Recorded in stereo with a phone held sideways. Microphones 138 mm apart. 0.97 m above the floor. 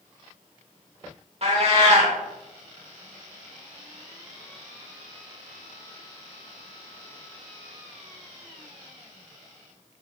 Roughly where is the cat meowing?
Right.